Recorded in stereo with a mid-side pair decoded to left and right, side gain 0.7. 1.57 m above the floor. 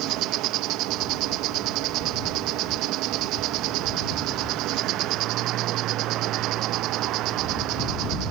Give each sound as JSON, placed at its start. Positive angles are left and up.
{"t": 0.0, "sound": "an insect", "azimuth_deg": -60}